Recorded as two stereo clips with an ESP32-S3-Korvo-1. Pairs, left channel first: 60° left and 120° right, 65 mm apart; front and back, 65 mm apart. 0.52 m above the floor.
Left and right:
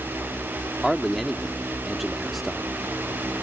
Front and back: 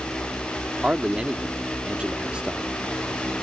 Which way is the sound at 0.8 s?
155° left.